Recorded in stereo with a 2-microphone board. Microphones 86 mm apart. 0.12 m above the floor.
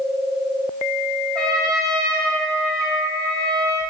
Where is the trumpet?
10° left (ahead or behind), 1.9 m.